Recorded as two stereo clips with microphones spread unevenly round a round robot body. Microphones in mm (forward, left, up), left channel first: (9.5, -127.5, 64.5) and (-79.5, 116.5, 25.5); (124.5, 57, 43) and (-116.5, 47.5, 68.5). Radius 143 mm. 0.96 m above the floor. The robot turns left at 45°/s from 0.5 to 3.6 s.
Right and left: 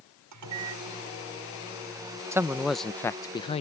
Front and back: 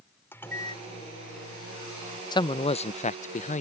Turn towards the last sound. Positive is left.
turn(degrees=-5)